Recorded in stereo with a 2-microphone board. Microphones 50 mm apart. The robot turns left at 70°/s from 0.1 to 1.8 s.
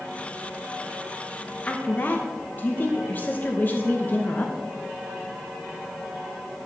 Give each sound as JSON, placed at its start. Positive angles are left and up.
{"t": 1.7, "sound": "a woman speaking", "side_deg": 30, "distance_m": 0.8}